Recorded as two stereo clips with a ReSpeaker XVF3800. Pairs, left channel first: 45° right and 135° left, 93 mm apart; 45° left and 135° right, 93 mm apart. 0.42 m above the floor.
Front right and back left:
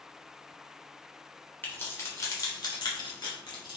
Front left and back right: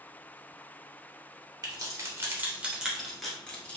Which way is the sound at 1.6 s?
105° right.